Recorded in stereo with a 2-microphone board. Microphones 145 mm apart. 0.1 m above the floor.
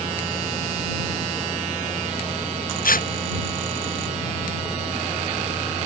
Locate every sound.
2.8 s tearing paper: 65° left (ahead or behind)